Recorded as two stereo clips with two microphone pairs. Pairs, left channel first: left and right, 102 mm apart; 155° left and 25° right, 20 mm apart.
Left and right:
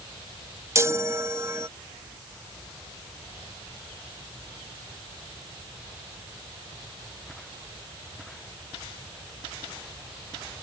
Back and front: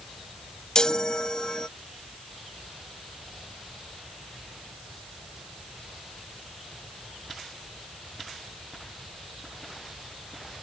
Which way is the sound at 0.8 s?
155° right.